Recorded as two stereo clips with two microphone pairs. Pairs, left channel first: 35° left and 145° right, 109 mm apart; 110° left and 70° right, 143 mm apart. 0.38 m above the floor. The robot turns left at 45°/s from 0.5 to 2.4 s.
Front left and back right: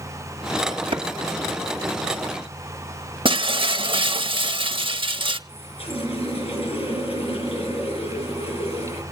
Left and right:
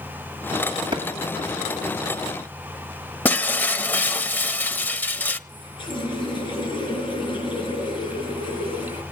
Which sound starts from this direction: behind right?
A clap, at 0.9 s.